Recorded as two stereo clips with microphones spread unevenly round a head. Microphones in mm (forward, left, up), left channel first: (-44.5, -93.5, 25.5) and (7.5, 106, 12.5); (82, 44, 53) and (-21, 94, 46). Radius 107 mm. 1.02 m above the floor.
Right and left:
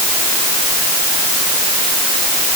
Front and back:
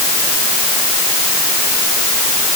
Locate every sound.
Only background noise.